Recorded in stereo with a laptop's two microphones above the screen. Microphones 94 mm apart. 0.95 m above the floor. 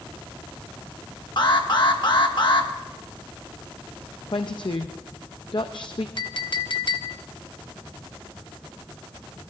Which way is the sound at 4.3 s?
55° left (ahead or behind).